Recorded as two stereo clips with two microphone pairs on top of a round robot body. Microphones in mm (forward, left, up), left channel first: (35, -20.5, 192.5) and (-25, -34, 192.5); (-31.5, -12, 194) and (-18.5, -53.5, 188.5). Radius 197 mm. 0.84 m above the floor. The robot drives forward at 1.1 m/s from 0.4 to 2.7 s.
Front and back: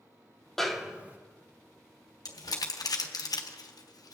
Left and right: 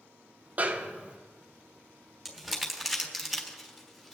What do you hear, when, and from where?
0.6 s a snare drum: 70° right, 1.2 m; by 1.2 s 115° right, 1.3 m
2.2 s crumpling: 10° left, 1.8 m; by 4.2 s 15° left, 1.3 m